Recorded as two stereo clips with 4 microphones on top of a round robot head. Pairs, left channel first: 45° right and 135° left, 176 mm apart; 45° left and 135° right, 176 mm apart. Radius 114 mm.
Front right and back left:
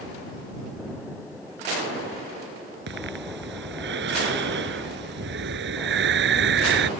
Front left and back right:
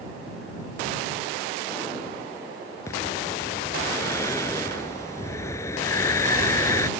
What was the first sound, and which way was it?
Breathing, 120° left.